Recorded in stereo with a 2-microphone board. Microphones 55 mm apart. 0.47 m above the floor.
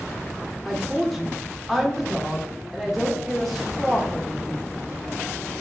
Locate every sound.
0.7 s a woman speaking: centre (ahead or behind), 0.8 m